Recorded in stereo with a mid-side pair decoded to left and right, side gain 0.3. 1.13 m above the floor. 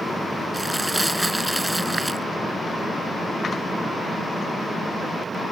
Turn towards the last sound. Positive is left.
turn(degrees=-15)